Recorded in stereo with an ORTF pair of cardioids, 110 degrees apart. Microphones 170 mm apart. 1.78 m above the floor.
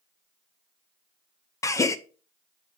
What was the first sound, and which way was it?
A gasp, 20° left.